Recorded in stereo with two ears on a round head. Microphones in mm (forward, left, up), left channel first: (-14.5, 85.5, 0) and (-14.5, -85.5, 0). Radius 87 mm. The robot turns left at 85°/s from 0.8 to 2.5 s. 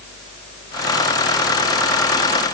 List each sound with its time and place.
Only background noise.